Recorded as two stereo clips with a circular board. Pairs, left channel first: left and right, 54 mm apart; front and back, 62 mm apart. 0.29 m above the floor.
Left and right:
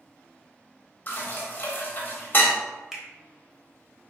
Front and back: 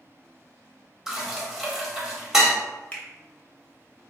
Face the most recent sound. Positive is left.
turn(degrees=-20)